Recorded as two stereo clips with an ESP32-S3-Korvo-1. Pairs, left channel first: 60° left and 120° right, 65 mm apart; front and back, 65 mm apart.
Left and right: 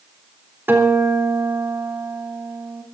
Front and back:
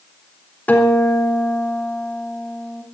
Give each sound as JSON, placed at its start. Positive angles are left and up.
{"t": 0.7, "sound": "a guitar", "azimuth_deg": -65, "distance_m": 3.5}